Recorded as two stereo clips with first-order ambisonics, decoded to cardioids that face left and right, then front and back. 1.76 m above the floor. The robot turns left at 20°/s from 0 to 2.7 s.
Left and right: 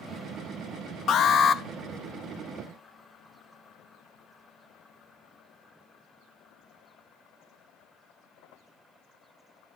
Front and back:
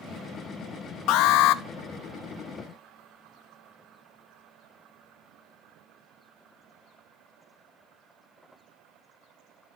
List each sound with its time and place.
1.1 s an alarm: 35° left, 0.8 m; by 1.6 s 25° left, 0.8 m